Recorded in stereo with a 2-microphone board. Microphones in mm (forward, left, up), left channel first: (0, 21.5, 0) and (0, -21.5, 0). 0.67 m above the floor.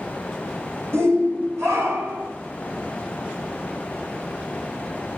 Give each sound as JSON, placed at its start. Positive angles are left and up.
{"t": 0.9, "sound": "a shout", "side_deg": -75, "distance_m": 3.5}